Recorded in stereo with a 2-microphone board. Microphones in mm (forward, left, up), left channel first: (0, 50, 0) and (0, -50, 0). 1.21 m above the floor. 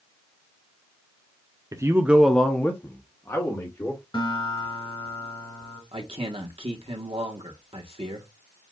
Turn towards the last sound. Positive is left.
turn(degrees=-75)  # may be behind; listen again after turning